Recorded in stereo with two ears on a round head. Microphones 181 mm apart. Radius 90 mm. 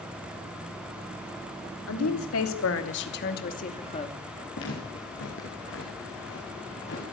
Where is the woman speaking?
85° left, 3 m; by 4.2 s 25° left (ahead or behind), 2.5 m.